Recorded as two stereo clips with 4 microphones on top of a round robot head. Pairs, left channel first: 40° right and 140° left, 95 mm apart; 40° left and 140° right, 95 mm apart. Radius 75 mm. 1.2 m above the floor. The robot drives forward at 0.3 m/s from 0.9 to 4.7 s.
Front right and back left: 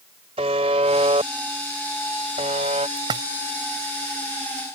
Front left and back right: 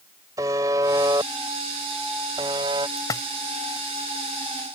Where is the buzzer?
165° left; by 2.9 s 170° left.